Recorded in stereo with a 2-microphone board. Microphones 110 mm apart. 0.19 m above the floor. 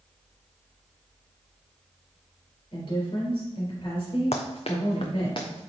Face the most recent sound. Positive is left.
turn(degrees=45)  # may be behind; listen again after turning